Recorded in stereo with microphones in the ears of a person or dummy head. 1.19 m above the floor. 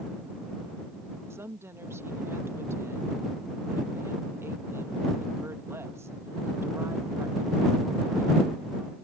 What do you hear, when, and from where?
1.3 s a woman speaking: 15° right (ahead or behind)